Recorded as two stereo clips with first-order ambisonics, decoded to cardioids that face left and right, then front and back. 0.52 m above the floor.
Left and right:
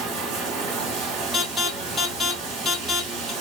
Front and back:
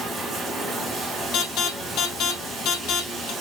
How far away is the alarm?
About 3 m.